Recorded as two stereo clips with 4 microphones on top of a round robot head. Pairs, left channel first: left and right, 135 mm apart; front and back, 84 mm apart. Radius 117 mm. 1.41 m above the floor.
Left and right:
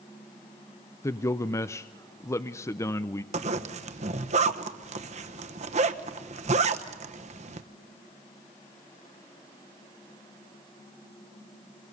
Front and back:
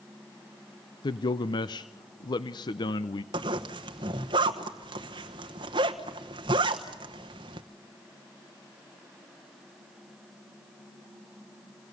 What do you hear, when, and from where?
1.0 s a man speaking: 25° left, 0.5 m
3.3 s a zipper: 135° right, 1.0 m